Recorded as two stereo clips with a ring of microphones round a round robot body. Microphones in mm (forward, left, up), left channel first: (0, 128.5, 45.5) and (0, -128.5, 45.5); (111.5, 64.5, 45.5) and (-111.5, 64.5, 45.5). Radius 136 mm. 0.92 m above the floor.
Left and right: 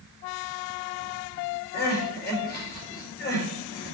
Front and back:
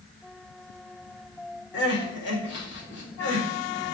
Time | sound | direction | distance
1.7 | crying | 35° left | 4 m